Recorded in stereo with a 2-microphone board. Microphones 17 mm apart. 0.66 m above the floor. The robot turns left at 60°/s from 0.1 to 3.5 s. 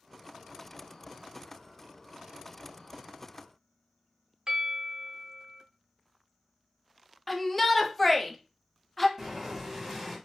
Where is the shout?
10° left (ahead or behind), 0.5 m.